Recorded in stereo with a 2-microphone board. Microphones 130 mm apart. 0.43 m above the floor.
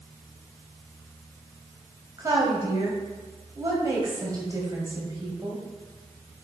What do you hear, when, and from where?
2.2 s a woman speaking: 30° right (ahead or behind), 2 m